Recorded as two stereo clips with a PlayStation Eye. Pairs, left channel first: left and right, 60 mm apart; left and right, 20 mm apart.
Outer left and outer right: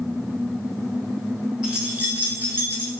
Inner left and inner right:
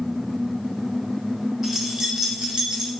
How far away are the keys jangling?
About 0.8 m.